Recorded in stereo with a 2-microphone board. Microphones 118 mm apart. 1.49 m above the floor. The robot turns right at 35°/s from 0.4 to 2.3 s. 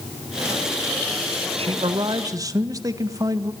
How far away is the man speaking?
About 1.7 m.